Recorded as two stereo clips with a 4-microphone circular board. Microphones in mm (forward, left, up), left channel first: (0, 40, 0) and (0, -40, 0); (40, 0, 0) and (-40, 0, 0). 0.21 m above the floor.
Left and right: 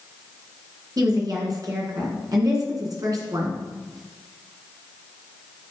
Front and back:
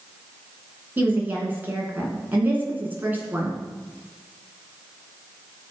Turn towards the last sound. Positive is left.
turn(degrees=-115)